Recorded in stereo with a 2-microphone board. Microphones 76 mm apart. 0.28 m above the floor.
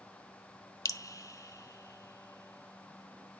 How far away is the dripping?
About 0.6 m.